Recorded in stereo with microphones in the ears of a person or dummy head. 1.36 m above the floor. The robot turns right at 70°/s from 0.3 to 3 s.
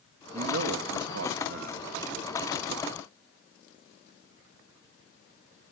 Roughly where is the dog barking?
No dog barking in this recording.